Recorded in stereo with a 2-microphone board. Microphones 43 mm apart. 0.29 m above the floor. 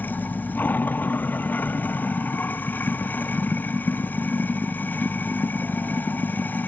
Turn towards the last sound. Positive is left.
turn(degrees=45)  # may be behind; listen again after turning